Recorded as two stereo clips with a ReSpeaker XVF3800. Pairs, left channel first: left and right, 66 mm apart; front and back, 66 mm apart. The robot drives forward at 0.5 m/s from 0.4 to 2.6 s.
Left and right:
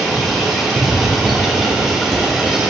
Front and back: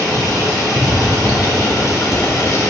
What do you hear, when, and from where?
0.0 s running water: 10° right, 3.5 m; by 2.7 s 15° right, 2.5 m